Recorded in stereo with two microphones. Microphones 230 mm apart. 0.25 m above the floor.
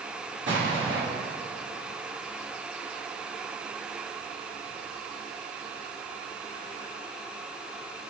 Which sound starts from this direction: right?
An explosion, at 0.5 s.